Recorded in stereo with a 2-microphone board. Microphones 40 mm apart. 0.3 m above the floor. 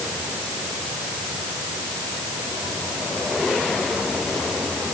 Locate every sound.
Only background noise.